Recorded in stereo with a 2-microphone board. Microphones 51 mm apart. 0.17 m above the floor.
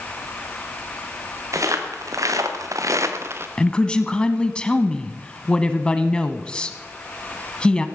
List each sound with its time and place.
1.5 s footsteps: 80° right, 3 m; by 3.5 s 45° right (ahead or behind), 1.6 m
3.6 s a woman speaking: 15° left (ahead or behind), 1.0 m